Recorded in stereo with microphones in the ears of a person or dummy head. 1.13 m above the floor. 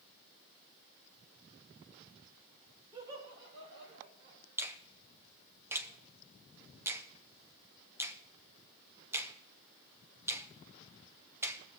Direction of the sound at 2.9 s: 20° right (ahead or behind).